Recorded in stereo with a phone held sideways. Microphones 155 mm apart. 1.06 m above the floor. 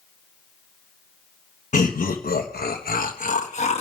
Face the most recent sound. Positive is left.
turn(degrees=45)  # may be behind; listen again after turning